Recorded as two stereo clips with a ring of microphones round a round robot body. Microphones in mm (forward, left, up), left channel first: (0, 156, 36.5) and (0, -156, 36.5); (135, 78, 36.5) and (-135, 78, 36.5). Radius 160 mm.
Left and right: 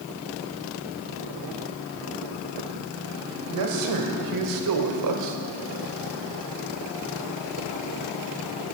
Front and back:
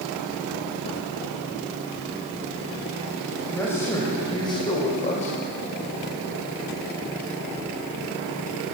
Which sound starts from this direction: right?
A man speaking, at 3.3 s.